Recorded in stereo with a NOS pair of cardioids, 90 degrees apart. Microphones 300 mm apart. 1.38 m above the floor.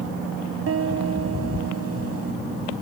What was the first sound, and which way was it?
A piano, 50° right.